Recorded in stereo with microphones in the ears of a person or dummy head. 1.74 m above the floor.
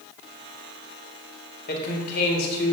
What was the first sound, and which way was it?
A man speaking, 55° left (ahead or behind).